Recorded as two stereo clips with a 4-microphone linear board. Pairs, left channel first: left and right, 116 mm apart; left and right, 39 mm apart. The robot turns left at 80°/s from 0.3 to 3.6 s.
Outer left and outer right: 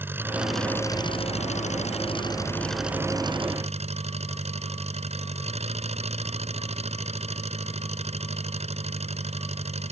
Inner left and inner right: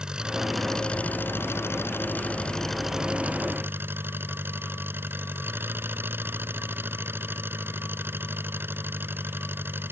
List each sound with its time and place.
0.0 s an engine running: 160° right; by 9.9 s 65° right